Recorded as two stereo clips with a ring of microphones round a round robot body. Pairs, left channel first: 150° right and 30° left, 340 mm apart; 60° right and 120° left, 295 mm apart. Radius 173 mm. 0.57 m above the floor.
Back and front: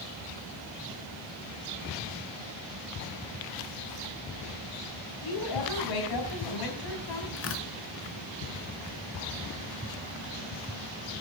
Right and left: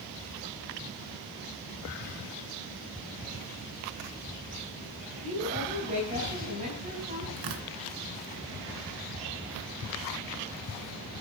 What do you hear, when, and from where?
5.2 s a woman speaking: 170° right, 4.5 m
7.4 s tearing paper: 155° left, 2 m